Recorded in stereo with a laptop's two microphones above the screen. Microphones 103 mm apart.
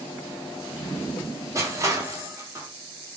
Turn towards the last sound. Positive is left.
turn(degrees=-30)  # may be behind; listen again after turning